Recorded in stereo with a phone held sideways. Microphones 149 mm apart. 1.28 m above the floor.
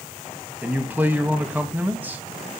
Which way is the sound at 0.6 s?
10° right (ahead or behind).